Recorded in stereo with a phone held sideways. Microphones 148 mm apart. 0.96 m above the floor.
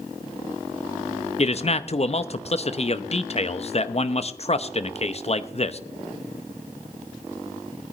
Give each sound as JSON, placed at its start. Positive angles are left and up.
{"t": 1.4, "sound": "a man speaking", "side_deg": 45, "distance_m": 0.7}